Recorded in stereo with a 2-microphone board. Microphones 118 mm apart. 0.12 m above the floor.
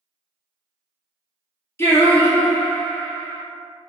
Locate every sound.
1.8 s singing: 20° left (ahead or behind), 0.8 m